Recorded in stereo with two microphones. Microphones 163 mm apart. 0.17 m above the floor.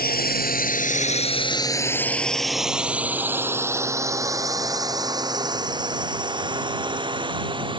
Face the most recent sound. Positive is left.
turn(degrees=-30)  # may be behind; listen again after turning